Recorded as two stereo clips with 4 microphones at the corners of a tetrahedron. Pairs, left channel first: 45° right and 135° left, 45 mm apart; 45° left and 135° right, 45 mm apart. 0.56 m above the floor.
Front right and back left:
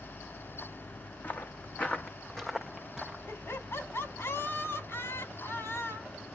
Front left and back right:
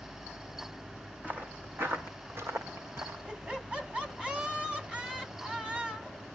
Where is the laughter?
70° right, 5 m.